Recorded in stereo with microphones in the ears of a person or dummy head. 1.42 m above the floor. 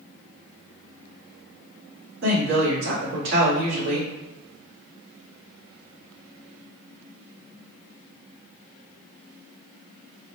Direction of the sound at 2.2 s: 65° right (ahead or behind).